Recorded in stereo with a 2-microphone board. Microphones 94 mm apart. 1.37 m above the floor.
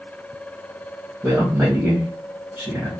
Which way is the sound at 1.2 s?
20° right (ahead or behind).